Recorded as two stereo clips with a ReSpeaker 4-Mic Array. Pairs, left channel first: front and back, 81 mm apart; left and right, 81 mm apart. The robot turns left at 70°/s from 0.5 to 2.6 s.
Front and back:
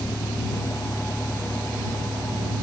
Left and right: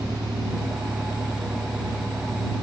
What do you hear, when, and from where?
0.0 s a vehicle: 40° right; by 2.6 s 170° left